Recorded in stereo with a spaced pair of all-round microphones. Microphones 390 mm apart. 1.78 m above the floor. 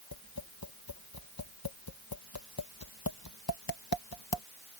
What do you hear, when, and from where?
0.1 s tapping: 65° left (ahead or behind)